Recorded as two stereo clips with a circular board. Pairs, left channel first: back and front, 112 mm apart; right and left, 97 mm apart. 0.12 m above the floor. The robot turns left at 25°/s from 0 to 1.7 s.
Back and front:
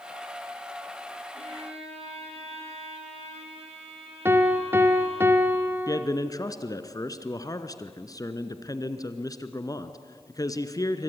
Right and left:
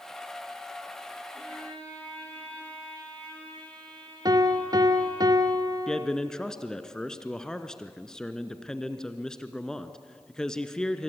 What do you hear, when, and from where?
1.3 s a violin: 5° right, 4.5 m; by 5.2 s 15° right, 4.5 m
4.2 s a piano: 60° left, 1.3 m
5.9 s a man speaking: 170° right, 1.3 m